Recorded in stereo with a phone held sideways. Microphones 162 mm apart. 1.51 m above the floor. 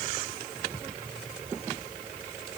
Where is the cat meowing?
No cat meowing in this recording.